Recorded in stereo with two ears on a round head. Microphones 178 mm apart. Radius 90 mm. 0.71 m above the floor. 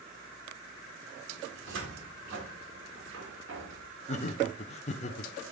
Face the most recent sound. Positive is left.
turn(degrees=35)  # may be behind; listen again after turning